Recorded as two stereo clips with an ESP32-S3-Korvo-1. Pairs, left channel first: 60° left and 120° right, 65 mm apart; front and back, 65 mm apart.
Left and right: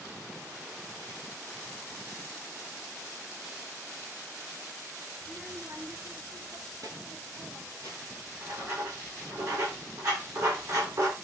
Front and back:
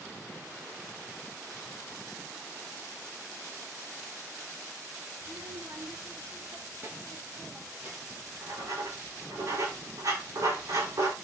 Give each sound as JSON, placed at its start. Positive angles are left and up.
{"t": 5.2, "sound": "a child speaking", "azimuth_deg": 175, "distance_m": 1.4}
{"t": 8.1, "sound": "writing", "azimuth_deg": -150, "distance_m": 8.0}